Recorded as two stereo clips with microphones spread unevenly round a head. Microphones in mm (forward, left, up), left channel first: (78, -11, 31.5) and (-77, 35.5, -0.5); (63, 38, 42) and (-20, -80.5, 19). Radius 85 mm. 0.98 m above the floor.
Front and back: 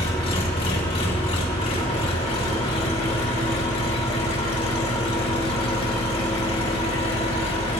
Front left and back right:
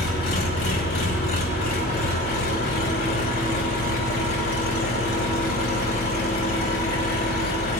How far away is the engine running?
About 2.5 m.